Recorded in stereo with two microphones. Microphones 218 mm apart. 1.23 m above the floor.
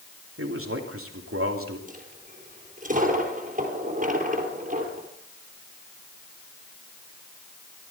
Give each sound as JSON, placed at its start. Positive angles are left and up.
{"t": 0.4, "sound": "a man speaking", "side_deg": -85, "distance_m": 2.5}
{"t": 1.9, "sound": "a dropped coin", "side_deg": -35, "distance_m": 3.0}